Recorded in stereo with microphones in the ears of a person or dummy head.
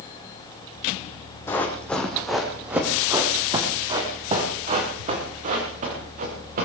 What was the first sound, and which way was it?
Running footsteps, 15° left (ahead or behind).